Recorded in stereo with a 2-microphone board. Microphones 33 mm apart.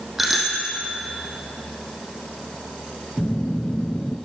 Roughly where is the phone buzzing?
Left.